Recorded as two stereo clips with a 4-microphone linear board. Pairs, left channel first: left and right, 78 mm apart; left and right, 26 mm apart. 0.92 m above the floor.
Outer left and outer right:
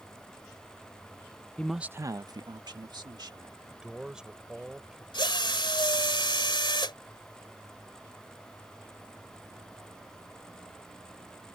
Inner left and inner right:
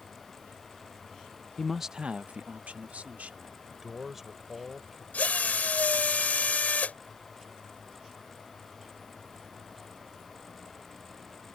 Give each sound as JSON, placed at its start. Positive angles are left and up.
{"t": 1.6, "sound": "a man speaking", "side_deg": 15}
{"t": 3.7, "sound": "a man speaking", "side_deg": -10}
{"t": 5.1, "sound": "a drill", "side_deg": 85}